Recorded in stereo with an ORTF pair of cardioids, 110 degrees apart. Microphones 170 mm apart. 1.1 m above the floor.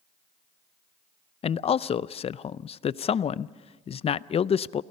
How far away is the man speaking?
About 0.6 m.